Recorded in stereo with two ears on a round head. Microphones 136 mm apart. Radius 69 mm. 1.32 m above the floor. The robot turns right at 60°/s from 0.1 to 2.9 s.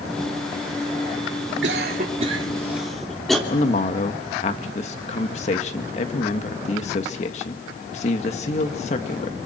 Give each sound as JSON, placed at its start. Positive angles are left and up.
{"t": 1.6, "sound": "a cough", "side_deg": -75, "distance_m": 3.0}
{"t": 3.5, "sound": "a man speaking", "side_deg": 40, "distance_m": 1.9}